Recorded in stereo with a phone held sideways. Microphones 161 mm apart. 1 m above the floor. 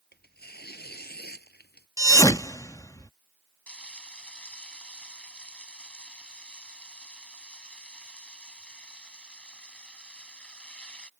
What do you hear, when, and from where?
0.1 s tearing paper: 80° left
2.0 s a thud: 20° left (ahead or behind)
3.7 s frying: 5° left (ahead or behind)